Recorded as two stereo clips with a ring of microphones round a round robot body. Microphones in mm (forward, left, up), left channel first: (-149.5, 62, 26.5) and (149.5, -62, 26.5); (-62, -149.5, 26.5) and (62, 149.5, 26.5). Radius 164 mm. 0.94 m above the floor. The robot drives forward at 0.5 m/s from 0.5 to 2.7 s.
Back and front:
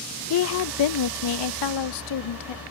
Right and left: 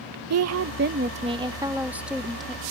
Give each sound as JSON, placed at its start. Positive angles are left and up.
{"t": 0.3, "sound": "a woman speaking", "azimuth_deg": 110}